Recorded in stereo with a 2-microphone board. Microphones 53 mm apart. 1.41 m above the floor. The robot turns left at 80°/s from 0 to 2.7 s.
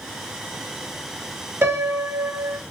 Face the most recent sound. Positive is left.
turn(degrees=-140)